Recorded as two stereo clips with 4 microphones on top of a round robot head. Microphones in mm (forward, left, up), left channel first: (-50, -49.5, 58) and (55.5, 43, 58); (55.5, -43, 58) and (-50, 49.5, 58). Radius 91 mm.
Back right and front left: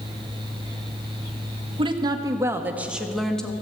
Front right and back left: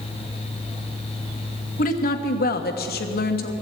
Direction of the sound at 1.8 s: 15° right.